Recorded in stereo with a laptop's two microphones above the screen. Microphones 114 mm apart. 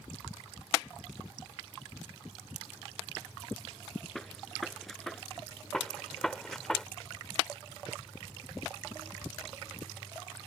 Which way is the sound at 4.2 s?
Centre (ahead or behind).